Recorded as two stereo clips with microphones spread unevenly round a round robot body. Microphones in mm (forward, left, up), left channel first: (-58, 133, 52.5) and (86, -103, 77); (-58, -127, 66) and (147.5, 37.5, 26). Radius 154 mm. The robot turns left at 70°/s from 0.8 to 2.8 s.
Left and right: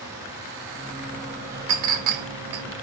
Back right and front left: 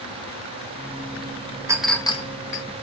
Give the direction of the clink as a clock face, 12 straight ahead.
1 o'clock.